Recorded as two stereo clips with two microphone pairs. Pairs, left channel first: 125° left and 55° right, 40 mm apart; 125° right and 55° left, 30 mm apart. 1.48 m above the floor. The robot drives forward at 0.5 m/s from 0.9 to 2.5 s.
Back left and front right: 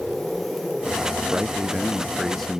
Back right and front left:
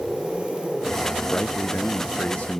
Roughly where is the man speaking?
Behind right.